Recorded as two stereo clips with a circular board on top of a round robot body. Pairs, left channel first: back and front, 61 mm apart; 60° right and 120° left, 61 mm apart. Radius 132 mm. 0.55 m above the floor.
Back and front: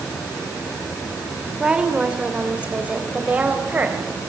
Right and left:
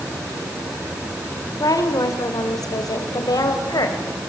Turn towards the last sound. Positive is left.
turn(degrees=-65)